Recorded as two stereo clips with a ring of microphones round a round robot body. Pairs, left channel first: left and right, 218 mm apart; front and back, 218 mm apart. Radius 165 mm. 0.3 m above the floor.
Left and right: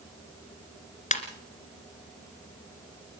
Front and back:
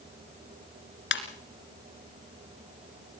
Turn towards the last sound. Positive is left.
turn(degrees=35)